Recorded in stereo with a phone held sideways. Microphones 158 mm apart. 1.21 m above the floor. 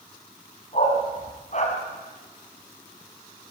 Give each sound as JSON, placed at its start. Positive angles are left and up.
{"t": 0.7, "sound": "a dog barking", "side_deg": 50, "distance_m": 4.0}